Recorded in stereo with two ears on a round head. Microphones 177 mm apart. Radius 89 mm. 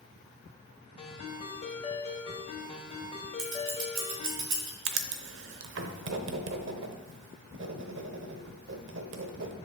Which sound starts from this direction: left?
A ringtone, at 1.0 s.